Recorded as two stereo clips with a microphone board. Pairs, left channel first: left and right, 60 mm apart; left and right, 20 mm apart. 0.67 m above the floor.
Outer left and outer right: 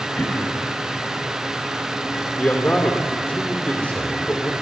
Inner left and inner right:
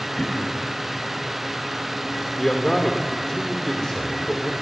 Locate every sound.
0.2 s throat clearing: 35° left (ahead or behind), 4.5 m
2.4 s a man speaking: 25° left (ahead or behind), 2.5 m